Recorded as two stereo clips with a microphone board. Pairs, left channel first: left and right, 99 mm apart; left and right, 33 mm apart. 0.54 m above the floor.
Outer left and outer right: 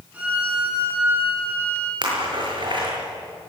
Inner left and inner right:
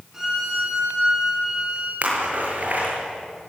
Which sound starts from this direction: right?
A splash, at 2.0 s.